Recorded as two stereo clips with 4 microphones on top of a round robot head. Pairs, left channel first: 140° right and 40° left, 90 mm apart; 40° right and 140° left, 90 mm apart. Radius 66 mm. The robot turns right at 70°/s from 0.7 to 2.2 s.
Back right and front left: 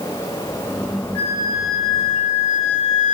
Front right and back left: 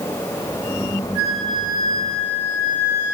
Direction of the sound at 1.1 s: 145° left.